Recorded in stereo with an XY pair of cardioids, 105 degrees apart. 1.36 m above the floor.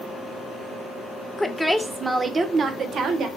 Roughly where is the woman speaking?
Ahead.